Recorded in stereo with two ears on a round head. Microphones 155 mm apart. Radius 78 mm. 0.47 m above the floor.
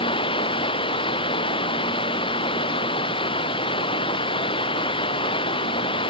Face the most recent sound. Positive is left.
turn(degrees=30)  # may be behind; listen again after turning